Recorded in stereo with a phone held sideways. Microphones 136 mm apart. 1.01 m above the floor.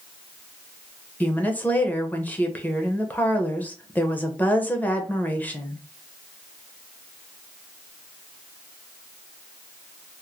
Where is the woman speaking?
10° left (ahead or behind), 0.8 m.